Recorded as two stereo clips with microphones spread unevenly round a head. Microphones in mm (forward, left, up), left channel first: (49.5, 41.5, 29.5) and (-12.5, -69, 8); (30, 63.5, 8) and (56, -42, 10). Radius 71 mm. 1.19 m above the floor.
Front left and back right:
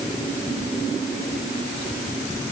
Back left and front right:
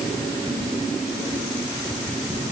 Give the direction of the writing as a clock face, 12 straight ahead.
No writing in this recording.